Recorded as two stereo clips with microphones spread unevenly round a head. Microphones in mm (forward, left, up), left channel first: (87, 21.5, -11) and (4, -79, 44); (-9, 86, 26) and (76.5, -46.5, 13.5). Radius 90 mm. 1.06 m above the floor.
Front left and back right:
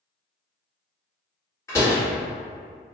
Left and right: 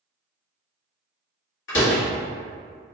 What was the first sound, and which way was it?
A door slam, 125° left.